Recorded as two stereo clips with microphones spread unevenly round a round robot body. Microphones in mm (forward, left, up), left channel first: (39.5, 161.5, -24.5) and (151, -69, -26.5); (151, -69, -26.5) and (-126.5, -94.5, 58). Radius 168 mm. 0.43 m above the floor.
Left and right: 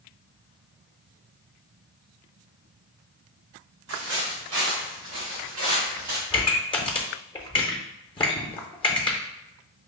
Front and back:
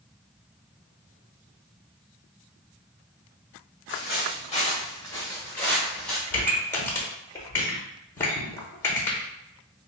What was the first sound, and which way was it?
Footsteps, 45° right.